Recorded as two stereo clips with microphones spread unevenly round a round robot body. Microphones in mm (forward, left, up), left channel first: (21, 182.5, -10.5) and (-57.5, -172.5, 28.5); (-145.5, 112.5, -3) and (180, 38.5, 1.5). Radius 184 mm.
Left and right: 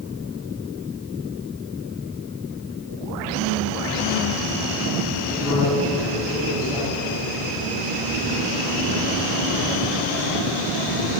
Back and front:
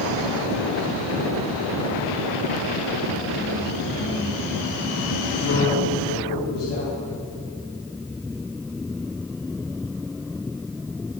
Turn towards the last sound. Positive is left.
turn(degrees=170)